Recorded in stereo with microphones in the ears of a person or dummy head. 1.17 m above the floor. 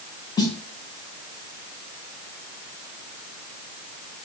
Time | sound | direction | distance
0.4 | a snare drum | 20° left (ahead or behind) | 0.7 m